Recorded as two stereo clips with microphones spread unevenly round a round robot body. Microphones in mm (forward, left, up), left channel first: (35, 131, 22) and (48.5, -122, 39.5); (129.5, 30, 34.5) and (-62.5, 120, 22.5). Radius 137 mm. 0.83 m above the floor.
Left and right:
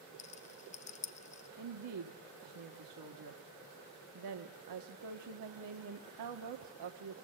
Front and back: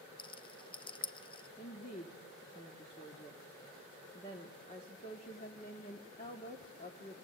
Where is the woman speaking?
95° right, 1.5 m.